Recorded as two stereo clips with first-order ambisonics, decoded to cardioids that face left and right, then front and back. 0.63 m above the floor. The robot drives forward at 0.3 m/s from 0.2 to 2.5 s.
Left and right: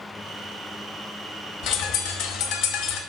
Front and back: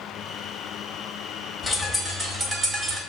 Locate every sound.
1.6 s a bird: 80° left, 0.6 m; by 3.0 s 110° left, 0.6 m